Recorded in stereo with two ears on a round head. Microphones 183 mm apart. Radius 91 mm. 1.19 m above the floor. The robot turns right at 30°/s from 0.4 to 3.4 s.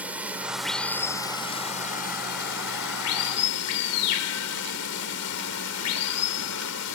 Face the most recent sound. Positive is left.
turn(degrees=80)